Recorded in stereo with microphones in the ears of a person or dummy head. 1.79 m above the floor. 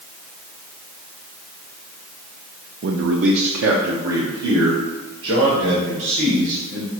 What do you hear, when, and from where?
2.8 s a man speaking: 60° right (ahead or behind), 0.5 m; by 6.9 s 65° right (ahead or behind), 3 m